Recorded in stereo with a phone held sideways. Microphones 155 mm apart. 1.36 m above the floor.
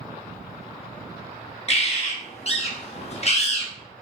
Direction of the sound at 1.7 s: 45° left (ahead or behind).